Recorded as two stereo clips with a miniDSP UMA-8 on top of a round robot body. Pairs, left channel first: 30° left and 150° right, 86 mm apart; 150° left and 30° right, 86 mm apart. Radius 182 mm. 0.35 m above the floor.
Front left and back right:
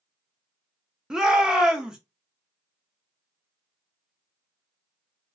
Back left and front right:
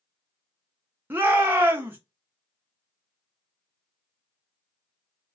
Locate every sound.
1.1 s a shout: 75° right, 0.9 m